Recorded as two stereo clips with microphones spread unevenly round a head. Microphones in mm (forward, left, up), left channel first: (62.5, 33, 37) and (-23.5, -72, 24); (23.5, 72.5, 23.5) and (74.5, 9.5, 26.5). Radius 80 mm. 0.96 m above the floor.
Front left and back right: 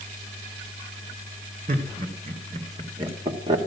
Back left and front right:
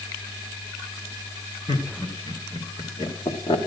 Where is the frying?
No frying in this recording.